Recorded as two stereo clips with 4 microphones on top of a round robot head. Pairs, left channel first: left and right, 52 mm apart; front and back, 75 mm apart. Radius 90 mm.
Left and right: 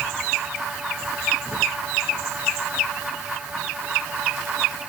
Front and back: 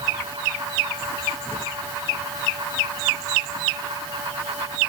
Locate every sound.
Only background noise.